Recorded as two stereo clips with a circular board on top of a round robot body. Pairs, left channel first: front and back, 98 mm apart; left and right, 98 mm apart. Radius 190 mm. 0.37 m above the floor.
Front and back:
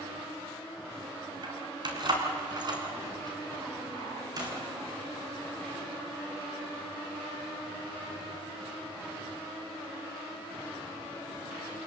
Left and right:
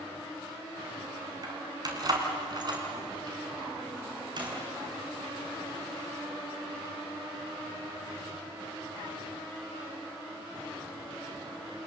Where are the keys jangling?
140° right, 4 m; by 4.5 s 130° right, 5.5 m.